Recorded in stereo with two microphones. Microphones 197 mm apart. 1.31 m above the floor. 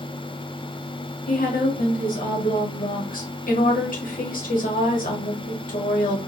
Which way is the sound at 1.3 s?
45° left (ahead or behind).